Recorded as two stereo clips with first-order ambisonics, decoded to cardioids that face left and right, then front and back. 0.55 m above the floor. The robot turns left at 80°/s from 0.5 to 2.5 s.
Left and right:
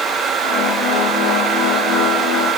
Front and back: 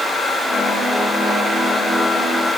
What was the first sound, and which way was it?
Only background noise.